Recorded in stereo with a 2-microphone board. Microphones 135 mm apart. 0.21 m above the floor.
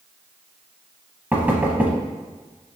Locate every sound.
1.3 s knocking: 15° right (ahead or behind), 0.7 m